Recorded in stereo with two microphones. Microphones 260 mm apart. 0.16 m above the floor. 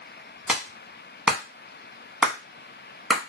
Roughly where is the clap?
Centre.